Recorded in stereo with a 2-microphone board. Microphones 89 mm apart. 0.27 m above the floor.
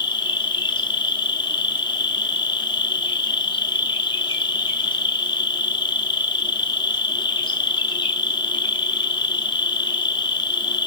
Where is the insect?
60° left (ahead or behind), 0.8 m.